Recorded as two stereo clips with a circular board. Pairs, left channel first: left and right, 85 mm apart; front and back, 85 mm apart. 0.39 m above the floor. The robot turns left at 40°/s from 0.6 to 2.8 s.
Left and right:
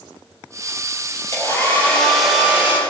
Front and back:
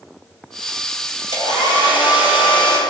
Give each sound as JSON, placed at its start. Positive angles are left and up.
{"t": 1.3, "sound": "a hair dryer", "azimuth_deg": 35, "distance_m": 5.0}